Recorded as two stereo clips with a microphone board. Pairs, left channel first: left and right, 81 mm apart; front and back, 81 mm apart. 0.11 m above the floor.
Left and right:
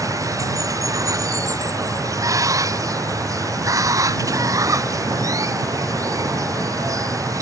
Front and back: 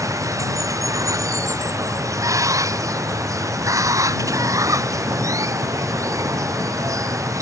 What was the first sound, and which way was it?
Running water, 135° right.